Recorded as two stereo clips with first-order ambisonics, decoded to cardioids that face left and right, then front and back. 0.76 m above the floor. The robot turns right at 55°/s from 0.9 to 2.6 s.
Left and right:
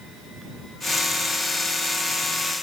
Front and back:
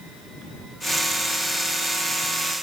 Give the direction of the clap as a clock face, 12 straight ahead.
I don't hear a clap.